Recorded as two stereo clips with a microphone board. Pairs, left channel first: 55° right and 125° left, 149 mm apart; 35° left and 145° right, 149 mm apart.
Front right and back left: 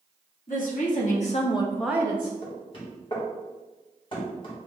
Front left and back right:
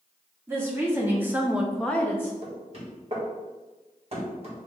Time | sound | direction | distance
0.5 | a woman speaking | 70° right | 1.8 m
2.4 | knocking | 105° right | 1.5 m